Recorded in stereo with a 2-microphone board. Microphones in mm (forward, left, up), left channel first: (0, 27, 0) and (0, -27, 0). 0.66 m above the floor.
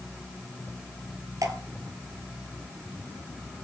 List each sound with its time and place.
1.4 s dripping: 75° right (ahead or behind), 2 m